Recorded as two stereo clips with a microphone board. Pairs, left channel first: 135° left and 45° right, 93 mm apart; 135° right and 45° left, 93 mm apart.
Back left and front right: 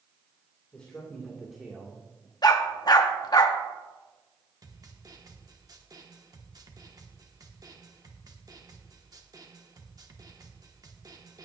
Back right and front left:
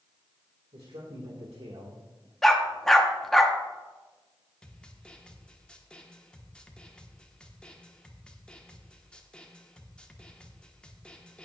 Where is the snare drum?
60° right, 1.1 m.